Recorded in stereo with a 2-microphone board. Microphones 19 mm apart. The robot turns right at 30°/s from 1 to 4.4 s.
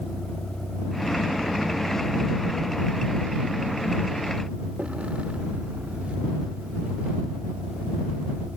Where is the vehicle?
25° left (ahead or behind); by 8.6 s 80° right.